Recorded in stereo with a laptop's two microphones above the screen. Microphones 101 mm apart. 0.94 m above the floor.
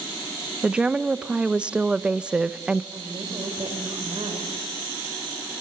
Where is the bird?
No bird in this recording.